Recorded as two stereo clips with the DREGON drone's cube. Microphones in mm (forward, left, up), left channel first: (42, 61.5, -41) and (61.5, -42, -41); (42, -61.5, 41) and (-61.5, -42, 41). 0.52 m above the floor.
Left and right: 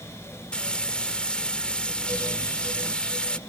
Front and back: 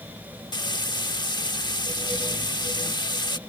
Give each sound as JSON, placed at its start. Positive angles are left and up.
{"t": 0.5, "sound": "frying", "azimuth_deg": 20}